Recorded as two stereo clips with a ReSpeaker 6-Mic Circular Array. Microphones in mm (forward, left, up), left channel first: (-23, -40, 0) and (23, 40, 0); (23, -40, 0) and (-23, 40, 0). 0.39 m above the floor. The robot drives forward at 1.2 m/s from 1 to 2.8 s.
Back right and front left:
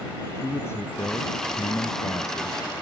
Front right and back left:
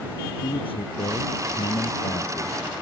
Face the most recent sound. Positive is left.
turn(degrees=-70)